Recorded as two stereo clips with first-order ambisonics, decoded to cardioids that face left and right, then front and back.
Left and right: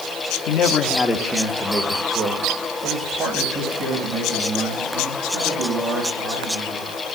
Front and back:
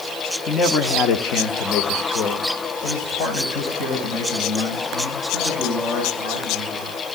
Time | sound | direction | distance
0.5 | a man speaking | 70° left | 1.0 m